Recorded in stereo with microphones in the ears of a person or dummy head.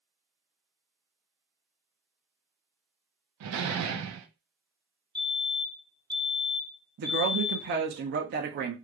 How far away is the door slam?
About 0.7 m.